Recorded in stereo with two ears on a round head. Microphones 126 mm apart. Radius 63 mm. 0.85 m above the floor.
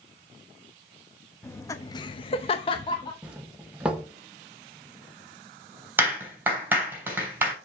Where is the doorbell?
5° right (ahead or behind), 1.1 m.